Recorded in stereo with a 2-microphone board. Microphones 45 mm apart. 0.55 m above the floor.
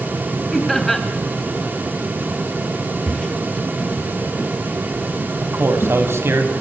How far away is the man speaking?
About 3 m.